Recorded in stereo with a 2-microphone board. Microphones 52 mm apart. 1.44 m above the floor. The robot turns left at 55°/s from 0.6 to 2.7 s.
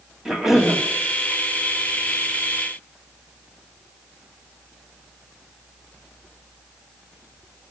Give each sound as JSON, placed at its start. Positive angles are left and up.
{"t": 0.2, "sound": "a cough", "side_deg": -10, "distance_m": 2.5}